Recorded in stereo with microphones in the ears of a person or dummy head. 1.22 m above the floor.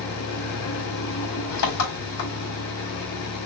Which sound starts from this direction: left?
An engine running, at 0.0 s.